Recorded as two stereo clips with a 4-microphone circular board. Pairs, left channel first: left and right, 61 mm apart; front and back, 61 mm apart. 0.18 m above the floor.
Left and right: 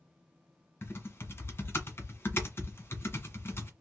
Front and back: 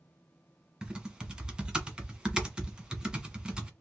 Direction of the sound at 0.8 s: 110° left.